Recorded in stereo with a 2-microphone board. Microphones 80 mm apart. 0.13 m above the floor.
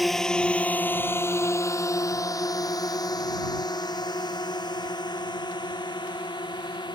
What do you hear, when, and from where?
0.0 s a drone: centre (ahead or behind); by 7.0 s 65° left (ahead or behind)